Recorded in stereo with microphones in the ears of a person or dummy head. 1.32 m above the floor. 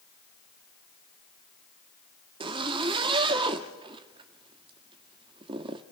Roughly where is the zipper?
Right.